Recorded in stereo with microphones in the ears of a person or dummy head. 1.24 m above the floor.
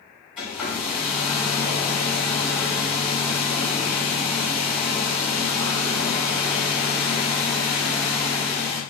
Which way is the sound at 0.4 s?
5° right (ahead or behind).